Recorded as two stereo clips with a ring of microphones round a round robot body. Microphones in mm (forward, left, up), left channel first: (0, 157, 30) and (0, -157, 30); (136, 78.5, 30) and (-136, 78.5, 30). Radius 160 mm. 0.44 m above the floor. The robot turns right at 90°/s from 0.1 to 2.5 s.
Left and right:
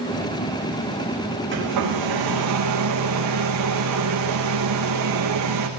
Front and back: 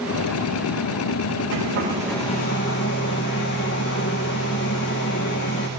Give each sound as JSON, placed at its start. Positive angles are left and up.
{"t": 1.5, "sound": "a hair dryer", "azimuth_deg": -145, "distance_m": 7.0}